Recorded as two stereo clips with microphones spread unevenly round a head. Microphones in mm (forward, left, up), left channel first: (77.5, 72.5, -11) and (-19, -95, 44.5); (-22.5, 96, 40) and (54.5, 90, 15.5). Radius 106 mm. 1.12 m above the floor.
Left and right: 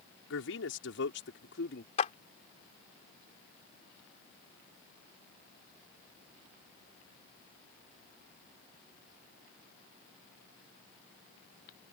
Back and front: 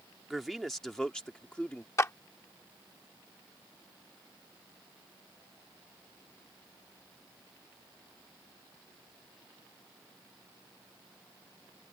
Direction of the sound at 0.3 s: 85° left.